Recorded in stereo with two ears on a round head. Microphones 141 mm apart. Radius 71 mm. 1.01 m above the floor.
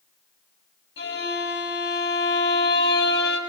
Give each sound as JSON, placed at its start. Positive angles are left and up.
{"t": 1.0, "sound": "a violin", "side_deg": 85, "distance_m": 8.0}